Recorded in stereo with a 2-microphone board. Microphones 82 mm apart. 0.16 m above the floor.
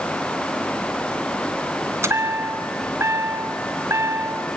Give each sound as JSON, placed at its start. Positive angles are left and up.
{"t": 2.0, "sound": "a chime", "side_deg": -35, "distance_m": 1.7}